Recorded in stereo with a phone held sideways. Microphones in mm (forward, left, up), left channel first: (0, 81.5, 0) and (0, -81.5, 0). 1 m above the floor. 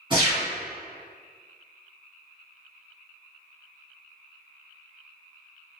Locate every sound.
0.1 s a gunshot: 30° right (ahead or behind), 1.8 m